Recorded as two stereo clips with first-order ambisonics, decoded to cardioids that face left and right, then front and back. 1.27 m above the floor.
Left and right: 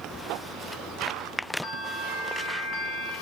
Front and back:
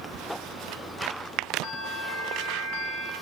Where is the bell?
35° left, 1.6 m.